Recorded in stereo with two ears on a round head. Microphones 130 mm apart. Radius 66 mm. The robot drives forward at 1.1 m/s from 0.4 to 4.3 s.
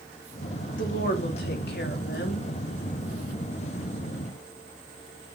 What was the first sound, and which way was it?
A woman speaking, 60° left (ahead or behind).